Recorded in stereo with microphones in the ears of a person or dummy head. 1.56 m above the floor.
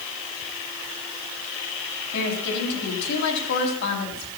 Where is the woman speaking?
65° left (ahead or behind), 3.5 m.